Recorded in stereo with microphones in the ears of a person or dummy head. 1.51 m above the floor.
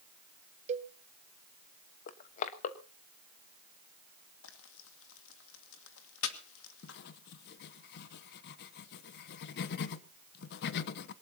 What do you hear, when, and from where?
0.7 s a cowbell: 35° right (ahead or behind), 0.7 m
2.1 s crushing: 45° left (ahead or behind), 1.1 m
4.4 s frying: 75° left (ahead or behind), 1.9 m
6.8 s writing: 60° left (ahead or behind), 0.8 m